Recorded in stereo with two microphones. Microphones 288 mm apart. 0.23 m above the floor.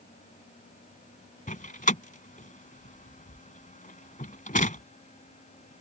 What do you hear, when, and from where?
1.5 s a door slam: 30° left (ahead or behind)